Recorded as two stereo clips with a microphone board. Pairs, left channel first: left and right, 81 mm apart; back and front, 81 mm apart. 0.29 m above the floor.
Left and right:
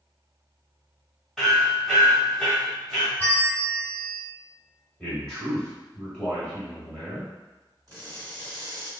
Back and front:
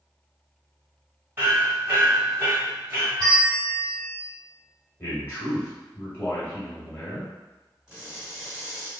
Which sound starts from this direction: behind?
A man speaking, at 5.0 s.